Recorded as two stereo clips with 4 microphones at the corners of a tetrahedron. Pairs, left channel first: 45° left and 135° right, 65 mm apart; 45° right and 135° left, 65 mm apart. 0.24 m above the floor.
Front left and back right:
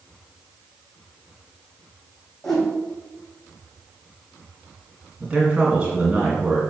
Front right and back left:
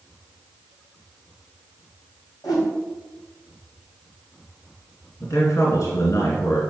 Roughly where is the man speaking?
Ahead right.